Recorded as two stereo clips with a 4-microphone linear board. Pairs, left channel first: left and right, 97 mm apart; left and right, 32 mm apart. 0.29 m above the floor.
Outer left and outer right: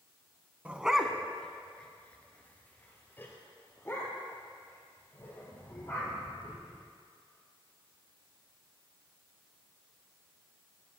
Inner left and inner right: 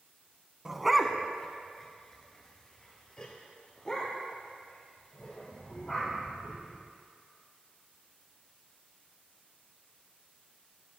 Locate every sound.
0.7 s a dog barking: 15° right (ahead or behind), 0.6 m; by 6.8 s 30° left (ahead or behind), 3.5 m